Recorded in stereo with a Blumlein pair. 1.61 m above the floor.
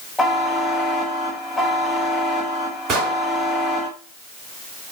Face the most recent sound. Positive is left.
turn(degrees=-35)